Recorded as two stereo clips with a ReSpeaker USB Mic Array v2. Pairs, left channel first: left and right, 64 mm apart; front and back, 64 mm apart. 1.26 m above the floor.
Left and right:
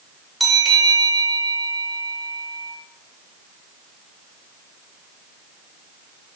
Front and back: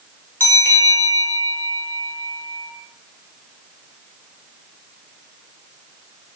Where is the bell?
Straight ahead, 1.0 m.